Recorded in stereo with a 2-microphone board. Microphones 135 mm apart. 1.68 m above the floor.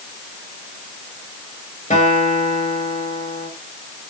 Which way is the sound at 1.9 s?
60° left (ahead or behind).